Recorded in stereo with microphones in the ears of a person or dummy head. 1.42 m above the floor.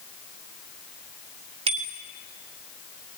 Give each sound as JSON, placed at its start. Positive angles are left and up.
{"t": 1.7, "sound": "a bicycle bell", "side_deg": -35, "distance_m": 2.0}